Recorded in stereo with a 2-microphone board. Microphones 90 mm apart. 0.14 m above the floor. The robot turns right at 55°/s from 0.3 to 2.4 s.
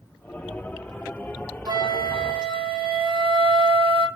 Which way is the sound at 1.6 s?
130° right.